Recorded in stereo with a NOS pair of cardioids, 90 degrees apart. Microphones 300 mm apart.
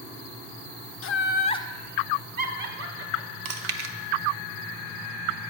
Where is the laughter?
45° left, 0.6 m; by 3.4 s 55° right, 1.0 m.